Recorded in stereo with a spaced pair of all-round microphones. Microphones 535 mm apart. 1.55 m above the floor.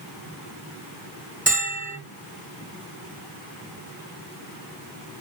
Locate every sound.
1.5 s a bell: 15° right (ahead or behind), 2.0 m